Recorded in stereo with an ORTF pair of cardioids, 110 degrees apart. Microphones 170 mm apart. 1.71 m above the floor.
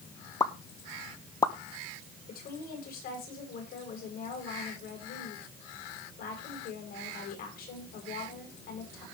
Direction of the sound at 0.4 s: 20° left.